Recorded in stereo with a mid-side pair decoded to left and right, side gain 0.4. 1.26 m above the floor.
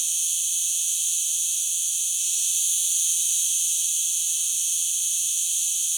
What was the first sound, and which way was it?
An insect, 25° right.